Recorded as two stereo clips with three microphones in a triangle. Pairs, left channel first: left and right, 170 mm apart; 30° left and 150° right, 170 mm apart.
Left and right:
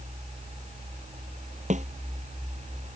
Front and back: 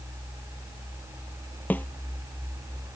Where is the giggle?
I don't hear a giggle.